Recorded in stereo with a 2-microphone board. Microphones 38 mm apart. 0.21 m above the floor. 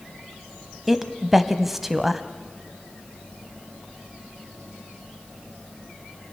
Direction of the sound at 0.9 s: 5° right (ahead or behind).